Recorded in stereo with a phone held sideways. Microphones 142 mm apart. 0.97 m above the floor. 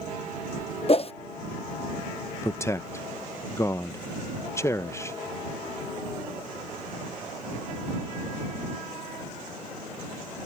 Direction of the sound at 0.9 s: 40° left (ahead or behind).